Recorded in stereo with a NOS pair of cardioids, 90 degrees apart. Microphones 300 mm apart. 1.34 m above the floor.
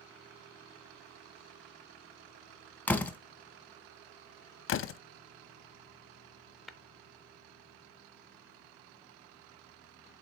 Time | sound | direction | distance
2.9 | a door slam | 5° left | 0.8 m
4.7 | a door slam | 40° left | 0.5 m
6.7 | tapping | straight ahead | 0.6 m